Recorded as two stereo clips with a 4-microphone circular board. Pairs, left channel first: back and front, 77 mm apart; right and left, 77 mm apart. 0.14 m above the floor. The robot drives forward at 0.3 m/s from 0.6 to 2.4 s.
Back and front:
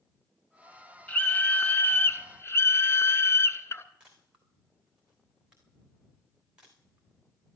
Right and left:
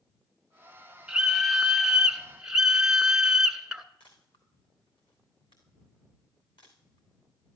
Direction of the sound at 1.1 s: 155° left.